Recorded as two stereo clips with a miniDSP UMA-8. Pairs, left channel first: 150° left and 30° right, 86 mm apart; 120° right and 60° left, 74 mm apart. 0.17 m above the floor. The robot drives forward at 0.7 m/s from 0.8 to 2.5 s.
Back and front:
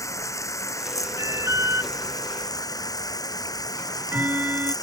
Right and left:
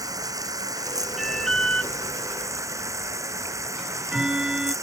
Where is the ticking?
5° right.